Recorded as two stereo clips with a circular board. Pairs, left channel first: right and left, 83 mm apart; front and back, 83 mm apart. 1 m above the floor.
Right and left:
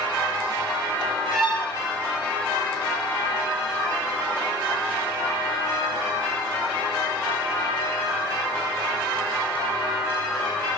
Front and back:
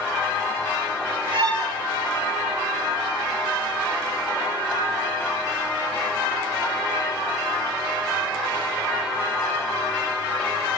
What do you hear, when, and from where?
1.3 s a violin: straight behind, 4.5 m